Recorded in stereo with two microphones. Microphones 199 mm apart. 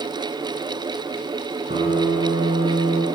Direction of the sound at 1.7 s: 40° right (ahead or behind).